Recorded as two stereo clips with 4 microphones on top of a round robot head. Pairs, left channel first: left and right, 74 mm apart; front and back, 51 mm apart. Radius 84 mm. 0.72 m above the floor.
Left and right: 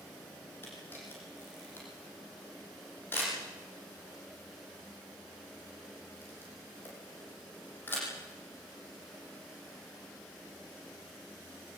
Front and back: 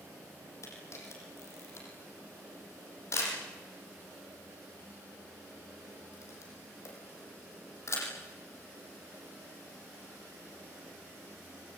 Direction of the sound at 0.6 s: 25° left.